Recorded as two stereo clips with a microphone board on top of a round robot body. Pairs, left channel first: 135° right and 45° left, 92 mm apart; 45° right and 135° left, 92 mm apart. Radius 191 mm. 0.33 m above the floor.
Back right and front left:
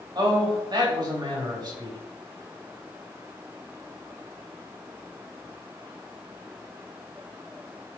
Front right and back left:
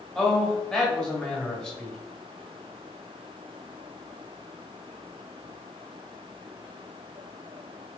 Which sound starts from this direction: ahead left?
A man speaking, at 0.1 s.